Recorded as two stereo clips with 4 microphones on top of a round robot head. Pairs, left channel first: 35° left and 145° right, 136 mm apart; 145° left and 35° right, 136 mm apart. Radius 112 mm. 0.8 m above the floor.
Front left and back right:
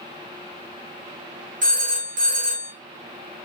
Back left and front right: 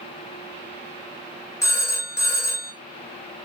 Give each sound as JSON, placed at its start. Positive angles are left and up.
{"t": 1.6, "sound": "a phone ringing", "azimuth_deg": -150, "distance_m": 0.8}